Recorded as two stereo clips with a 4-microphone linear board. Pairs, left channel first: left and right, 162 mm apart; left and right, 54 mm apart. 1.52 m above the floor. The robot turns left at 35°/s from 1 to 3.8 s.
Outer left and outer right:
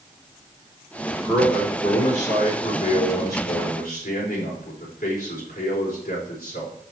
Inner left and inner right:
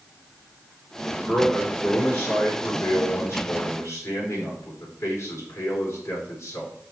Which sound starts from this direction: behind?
A man speaking, at 1.2 s.